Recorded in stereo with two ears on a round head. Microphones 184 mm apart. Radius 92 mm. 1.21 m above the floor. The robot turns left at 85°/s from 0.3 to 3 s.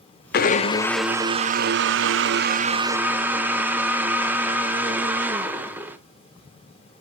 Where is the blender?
55° left, 0.5 m; by 6.0 s 170° right, 0.5 m.